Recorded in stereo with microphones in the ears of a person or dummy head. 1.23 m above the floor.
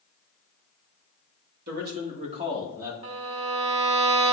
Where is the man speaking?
45° right (ahead or behind), 2 m; by 2.9 s 5° right (ahead or behind), 2.0 m.